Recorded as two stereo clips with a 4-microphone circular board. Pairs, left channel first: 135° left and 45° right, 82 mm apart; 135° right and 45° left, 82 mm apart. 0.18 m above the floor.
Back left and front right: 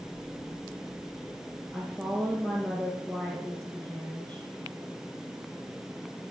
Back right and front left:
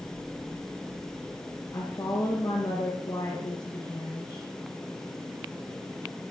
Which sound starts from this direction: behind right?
A woman speaking, at 1.7 s.